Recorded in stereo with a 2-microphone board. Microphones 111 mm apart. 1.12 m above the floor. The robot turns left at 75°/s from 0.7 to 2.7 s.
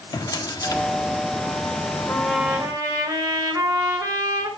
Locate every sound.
0.1 s a drawer: 35° left (ahead or behind), 1.4 m; by 0.8 s 25° left (ahead or behind), 1.4 m
2.1 s a trumpet: 15° left, 4.5 m; by 4.5 s 35° right, 4.5 m